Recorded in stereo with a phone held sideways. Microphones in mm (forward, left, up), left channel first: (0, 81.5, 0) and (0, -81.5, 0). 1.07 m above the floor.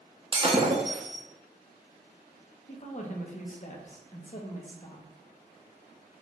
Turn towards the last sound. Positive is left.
turn(degrees=45)  # may be behind; listen again after turning